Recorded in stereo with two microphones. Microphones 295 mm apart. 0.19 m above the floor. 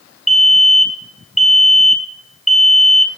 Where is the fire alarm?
Centre (ahead or behind), 2.5 m.